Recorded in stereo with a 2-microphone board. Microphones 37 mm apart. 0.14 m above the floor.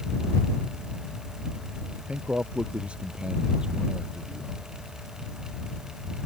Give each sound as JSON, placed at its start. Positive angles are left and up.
{"t": 2.1, "sound": "a man speaking", "side_deg": -35}